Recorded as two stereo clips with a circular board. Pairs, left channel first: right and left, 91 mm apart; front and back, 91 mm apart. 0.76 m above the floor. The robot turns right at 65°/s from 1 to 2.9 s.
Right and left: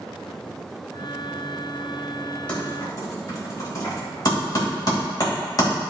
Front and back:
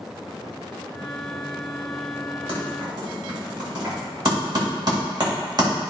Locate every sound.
2.5 s typing on a keyboard: 165° right, 3 m; by 5.7 s 140° right, 3 m